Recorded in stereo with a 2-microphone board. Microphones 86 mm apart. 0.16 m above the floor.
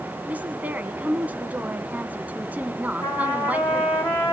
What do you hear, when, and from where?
0.3 s a woman speaking: 20° right (ahead or behind), 1.3 m
3.0 s a trumpet: 30° left (ahead or behind), 9 m